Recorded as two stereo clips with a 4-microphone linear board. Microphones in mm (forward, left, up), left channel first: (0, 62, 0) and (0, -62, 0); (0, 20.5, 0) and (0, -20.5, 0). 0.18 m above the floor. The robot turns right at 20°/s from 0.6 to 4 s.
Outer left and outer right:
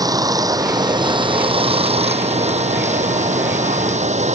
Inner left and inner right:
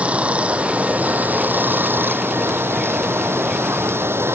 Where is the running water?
150° right; by 4.3 s 80° right.